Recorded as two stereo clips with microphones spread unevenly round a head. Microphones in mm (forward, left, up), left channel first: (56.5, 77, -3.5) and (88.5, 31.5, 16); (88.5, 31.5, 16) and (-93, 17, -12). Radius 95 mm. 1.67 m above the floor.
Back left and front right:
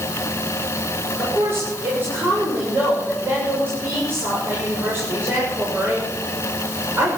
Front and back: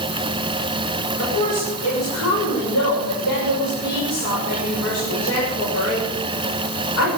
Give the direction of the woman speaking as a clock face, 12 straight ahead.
12 o'clock.